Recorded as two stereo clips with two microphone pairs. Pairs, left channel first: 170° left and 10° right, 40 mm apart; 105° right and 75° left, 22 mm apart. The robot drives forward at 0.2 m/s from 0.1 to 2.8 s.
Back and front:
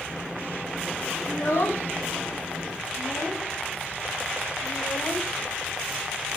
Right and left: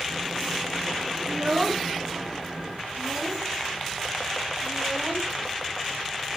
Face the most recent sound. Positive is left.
turn(degrees=155)